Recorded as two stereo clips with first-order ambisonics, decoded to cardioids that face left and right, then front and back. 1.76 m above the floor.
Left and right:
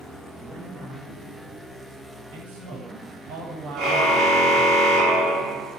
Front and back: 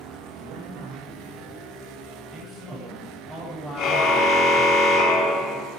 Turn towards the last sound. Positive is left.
turn(degrees=-45)